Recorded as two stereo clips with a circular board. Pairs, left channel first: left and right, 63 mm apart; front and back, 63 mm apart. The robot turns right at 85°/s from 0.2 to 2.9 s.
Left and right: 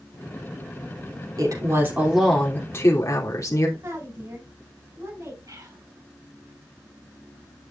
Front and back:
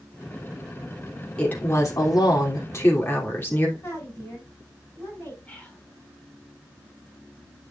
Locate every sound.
1.4 s a woman speaking: 75° right, 3 m; by 3.7 s 55° left, 3 m
3.8 s a woman speaking: 65° right, 6.5 m
5.5 s whispering: 70° right, 3.5 m